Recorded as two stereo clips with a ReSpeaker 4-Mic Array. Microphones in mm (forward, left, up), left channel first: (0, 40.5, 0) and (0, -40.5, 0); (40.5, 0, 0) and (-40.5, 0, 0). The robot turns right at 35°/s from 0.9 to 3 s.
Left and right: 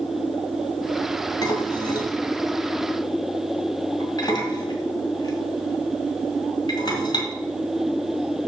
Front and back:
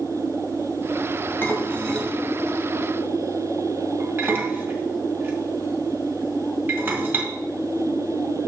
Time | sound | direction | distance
1.4 | dishes clattering | 60° left | 1.8 m